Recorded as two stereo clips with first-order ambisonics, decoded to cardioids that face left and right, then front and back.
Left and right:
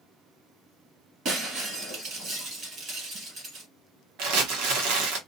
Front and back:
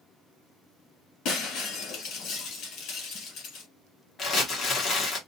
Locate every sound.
1.2 s breaking glass: 35° right, 1.8 m
4.2 s crumpling: 65° right, 1.0 m